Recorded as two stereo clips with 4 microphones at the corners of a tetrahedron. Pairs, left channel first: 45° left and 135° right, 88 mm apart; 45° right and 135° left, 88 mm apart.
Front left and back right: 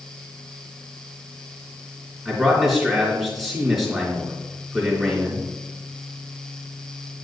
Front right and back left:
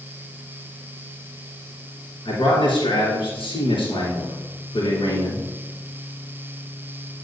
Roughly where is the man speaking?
Ahead right.